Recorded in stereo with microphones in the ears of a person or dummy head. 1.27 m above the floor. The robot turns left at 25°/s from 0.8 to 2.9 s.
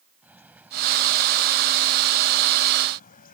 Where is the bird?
170° right; by 3.4 s 140° left.